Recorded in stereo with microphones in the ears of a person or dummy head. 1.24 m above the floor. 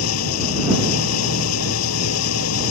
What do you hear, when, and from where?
0.0 s an engine running: 90° left